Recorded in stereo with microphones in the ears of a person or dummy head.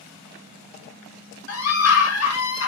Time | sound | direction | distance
1.5 | a scream | 70° left (ahead or behind) | 1.5 m